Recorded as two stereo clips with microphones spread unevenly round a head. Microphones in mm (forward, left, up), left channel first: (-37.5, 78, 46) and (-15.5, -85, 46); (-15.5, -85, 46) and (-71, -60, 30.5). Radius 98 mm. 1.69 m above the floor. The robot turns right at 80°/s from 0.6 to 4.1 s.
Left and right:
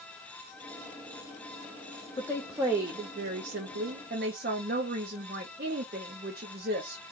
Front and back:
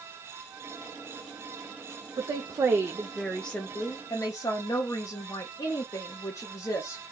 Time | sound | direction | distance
2.2 | a woman speaking | 165° left | 0.6 m